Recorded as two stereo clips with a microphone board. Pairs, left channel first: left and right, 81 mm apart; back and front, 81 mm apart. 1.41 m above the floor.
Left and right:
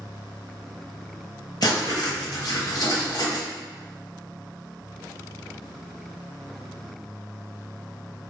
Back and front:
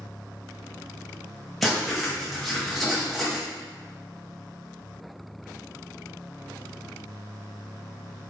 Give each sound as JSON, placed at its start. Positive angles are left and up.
{"t": 1.6, "sound": "writing", "azimuth_deg": 95, "distance_m": 0.8}